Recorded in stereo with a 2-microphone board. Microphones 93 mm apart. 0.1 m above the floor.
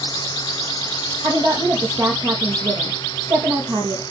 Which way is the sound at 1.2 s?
50° right (ahead or behind).